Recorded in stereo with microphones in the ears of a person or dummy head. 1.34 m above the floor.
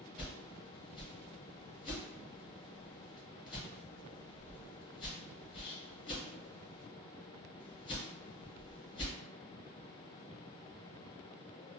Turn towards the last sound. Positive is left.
turn(degrees=25)  # may be behind; listen again after turning